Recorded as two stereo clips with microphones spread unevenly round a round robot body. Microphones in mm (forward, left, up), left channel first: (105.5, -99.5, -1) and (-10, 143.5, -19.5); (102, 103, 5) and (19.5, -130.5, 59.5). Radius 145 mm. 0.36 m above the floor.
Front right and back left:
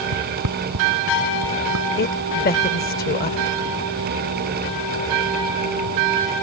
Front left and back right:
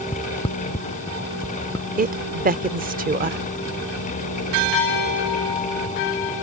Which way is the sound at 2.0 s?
70° right.